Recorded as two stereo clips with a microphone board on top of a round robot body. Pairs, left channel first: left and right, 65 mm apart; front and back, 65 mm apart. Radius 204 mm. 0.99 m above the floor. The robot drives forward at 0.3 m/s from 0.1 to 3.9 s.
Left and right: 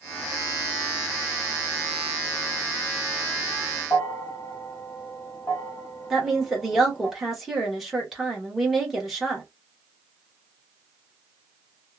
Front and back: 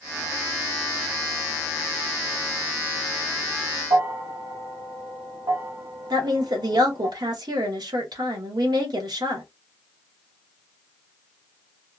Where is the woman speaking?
175° right, 1.1 m.